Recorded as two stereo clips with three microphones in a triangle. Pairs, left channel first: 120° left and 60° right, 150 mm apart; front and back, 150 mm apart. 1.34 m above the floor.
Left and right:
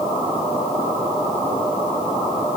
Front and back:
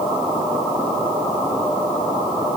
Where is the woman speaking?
I don't hear a woman speaking.